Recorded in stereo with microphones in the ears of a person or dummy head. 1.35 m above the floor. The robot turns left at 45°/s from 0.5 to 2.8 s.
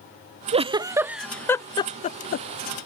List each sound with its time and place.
0.5 s a giggle: 30° right (ahead or behind); by 2.5 s 60° left (ahead or behind)